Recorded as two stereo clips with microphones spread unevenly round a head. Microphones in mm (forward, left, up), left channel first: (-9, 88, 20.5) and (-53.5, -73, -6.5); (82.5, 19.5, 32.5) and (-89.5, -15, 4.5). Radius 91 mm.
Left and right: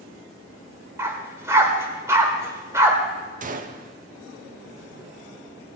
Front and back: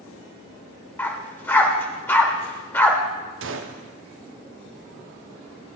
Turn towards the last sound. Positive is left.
turn(degrees=-150)